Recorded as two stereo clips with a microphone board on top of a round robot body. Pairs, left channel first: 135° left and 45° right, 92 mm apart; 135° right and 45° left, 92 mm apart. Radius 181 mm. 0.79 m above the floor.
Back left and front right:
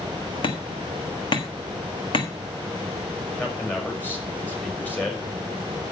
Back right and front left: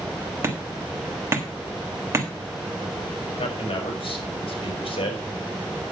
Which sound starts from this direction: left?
Hammering, at 0.4 s.